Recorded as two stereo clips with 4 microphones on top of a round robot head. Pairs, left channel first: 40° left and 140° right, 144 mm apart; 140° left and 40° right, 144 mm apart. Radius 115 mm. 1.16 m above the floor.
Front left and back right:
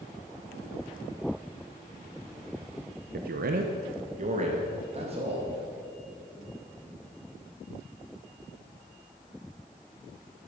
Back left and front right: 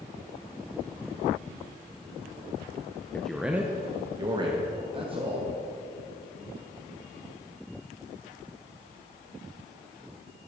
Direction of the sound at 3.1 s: 140° right.